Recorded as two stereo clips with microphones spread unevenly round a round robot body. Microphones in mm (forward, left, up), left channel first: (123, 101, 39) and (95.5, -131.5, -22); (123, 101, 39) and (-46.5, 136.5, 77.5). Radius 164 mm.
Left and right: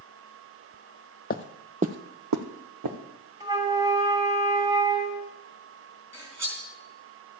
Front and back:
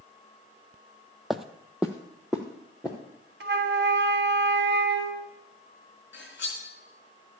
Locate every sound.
1.3 s footsteps: 90° left, 0.8 m; by 3.0 s 110° right, 1.8 m
3.4 s a flute: 165° right, 0.7 m
6.1 s cutlery clinking: 15° right, 4 m